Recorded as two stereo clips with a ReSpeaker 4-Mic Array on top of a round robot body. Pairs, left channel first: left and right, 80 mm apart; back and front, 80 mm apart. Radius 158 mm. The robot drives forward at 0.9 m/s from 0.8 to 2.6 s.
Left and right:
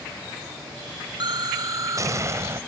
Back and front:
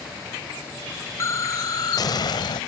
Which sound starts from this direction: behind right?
An explosion, at 1.2 s.